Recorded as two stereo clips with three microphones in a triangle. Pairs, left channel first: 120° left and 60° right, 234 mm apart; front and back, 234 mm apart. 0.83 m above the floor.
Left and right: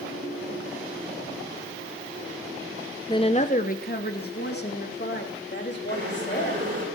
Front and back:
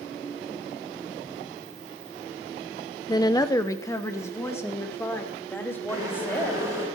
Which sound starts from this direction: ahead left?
A woman speaking, at 3.1 s.